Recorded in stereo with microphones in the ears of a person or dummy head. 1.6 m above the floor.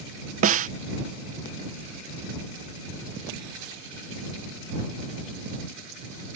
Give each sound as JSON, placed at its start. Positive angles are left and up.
{"t": 0.4, "sound": "a snare drum", "side_deg": -45}